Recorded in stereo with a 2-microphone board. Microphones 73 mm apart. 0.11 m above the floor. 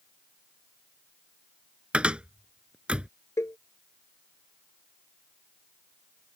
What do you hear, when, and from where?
1.9 s a cupboard door: 15° right (ahead or behind)
3.4 s a cowbell: 40° left (ahead or behind)